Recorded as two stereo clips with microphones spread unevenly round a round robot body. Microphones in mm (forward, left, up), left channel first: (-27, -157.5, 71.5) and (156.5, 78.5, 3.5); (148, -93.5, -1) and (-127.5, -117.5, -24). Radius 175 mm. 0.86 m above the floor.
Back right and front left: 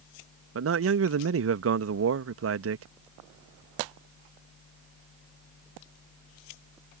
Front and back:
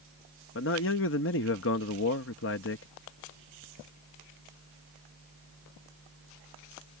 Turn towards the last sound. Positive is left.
turn(degrees=55)